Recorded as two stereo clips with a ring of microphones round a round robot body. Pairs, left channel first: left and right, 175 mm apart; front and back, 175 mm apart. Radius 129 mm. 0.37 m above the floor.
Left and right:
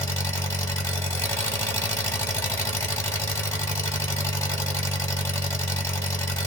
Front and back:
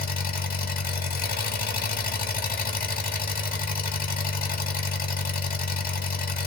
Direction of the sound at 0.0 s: 15° left.